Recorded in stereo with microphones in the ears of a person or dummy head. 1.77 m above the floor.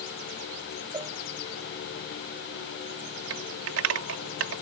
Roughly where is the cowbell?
Centre.